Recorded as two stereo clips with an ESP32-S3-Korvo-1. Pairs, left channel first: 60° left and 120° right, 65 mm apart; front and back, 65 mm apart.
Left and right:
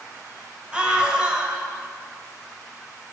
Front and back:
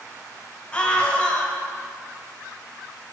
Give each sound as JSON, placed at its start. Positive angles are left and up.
{"t": 0.7, "sound": "a scream", "azimuth_deg": -60, "distance_m": 1.8}